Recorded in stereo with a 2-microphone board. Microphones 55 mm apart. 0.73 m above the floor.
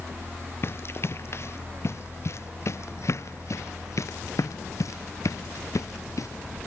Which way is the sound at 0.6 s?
50° left (ahead or behind).